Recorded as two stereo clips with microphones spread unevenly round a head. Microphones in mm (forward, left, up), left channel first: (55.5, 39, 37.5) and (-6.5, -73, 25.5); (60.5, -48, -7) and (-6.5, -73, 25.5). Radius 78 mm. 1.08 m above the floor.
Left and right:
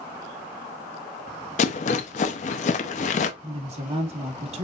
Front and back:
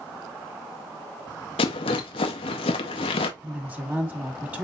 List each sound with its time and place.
1.6 s a rattle: 45° left, 0.5 m
3.4 s a woman speaking: 85° right, 1.9 m